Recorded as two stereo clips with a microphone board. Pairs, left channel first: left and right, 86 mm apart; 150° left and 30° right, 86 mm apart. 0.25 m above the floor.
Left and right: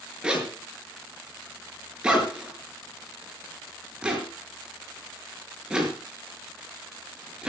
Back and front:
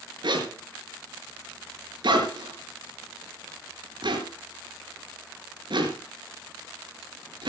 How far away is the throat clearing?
I don't hear throat clearing.